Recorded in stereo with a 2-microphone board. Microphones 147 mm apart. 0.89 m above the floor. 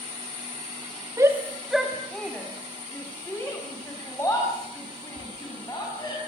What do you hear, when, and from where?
1.2 s a shout: 20° right (ahead or behind), 1.4 m; by 6.2 s 25° left (ahead or behind), 8 m